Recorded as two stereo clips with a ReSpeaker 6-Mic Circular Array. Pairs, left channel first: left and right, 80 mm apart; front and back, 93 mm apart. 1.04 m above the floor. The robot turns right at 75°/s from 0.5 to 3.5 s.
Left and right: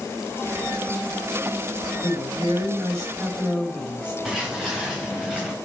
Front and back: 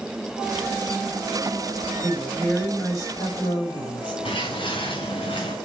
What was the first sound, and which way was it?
A woman speaking, 120° right.